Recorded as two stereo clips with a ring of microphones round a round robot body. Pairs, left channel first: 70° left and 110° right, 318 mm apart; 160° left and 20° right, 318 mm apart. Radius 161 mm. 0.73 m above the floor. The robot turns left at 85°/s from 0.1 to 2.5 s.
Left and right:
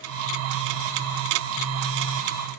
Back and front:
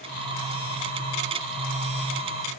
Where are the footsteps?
No footsteps in this recording.